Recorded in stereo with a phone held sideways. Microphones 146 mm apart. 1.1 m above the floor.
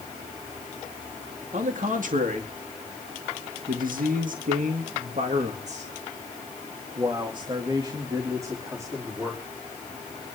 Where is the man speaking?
60° right (ahead or behind), 2.5 m; by 9.4 s 15° right (ahead or behind), 3 m.